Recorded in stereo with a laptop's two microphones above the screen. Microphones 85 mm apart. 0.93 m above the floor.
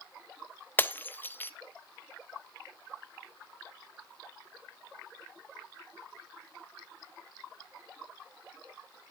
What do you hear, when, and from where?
0.8 s breaking glass: 20° left (ahead or behind), 0.5 m